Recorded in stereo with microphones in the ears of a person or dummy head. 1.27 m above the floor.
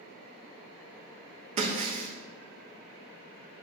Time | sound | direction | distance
1.6 | breaking glass | 45° right (ahead or behind) | 0.9 m